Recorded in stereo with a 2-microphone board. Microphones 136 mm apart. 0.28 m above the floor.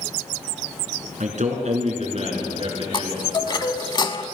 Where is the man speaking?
65° right (ahead or behind), 3 m; by 3.9 s 35° right (ahead or behind), 4 m.